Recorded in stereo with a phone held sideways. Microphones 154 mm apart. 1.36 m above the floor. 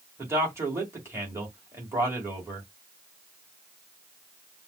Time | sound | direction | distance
0.2 | a man speaking | 15° right (ahead or behind) | 2 m